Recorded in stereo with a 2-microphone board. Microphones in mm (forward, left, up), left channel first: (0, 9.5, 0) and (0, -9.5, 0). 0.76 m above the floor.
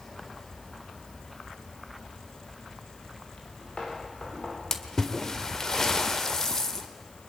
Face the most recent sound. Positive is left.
turn(degrees=30)  # may be behind; listen again after turning